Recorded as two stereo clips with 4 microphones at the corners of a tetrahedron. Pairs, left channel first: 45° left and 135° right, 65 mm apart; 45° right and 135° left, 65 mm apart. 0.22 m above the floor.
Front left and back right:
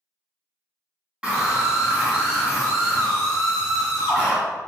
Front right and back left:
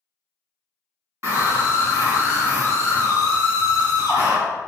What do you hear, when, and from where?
1.2 s a scream: 155° left, 2.0 m; by 4.4 s 145° left, 4 m